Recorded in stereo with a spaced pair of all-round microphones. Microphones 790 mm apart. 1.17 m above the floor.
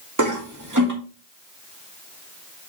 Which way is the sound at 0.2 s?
25° right (ahead or behind).